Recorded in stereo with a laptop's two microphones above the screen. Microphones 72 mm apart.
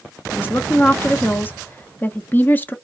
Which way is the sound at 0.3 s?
25° left (ahead or behind).